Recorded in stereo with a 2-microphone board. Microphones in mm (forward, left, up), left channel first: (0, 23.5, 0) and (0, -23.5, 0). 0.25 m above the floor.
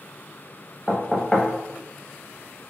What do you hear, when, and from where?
0.9 s knocking: 10° left (ahead or behind), 0.6 m